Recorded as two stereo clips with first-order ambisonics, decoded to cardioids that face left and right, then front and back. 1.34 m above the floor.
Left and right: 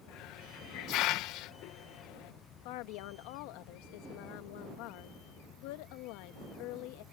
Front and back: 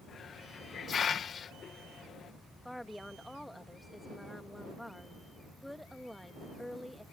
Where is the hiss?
65° left.